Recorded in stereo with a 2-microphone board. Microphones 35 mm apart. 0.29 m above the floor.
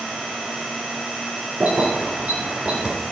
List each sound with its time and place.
1.6 s keys jangling: 60° right (ahead or behind), 2.5 m; by 3.0 s 40° right (ahead or behind), 2.5 m